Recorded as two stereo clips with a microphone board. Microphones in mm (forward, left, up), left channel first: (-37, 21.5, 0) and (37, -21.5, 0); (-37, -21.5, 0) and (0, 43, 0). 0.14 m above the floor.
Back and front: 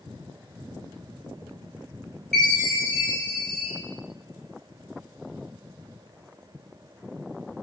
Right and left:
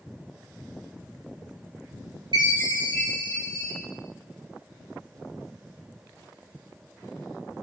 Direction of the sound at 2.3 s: 65° left.